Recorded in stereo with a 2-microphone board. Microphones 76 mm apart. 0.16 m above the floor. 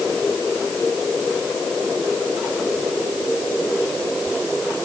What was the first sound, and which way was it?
Only background noise.